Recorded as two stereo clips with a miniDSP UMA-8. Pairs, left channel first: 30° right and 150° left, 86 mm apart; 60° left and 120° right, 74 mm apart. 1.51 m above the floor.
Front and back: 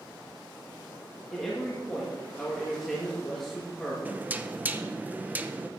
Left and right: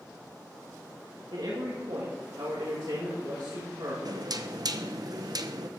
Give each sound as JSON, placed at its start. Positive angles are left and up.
{"t": 1.3, "sound": "a man speaking", "azimuth_deg": -115, "distance_m": 2.5}
{"t": 4.0, "sound": "knocking", "azimuth_deg": -140, "distance_m": 0.8}